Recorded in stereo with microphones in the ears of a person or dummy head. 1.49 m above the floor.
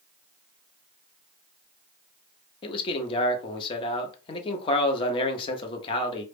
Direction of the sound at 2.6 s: 30° left (ahead or behind).